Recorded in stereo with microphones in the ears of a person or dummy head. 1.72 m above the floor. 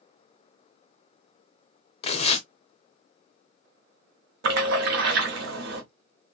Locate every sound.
2.0 s tearing paper: 35° left (ahead or behind), 0.5 m
4.4 s a splash: 65° right (ahead or behind), 0.9 m